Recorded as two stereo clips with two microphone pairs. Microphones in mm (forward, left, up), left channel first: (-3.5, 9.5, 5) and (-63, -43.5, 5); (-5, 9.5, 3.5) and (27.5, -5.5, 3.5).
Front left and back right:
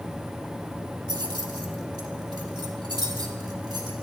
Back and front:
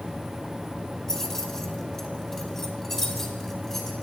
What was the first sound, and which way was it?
Keys jangling, 125° right.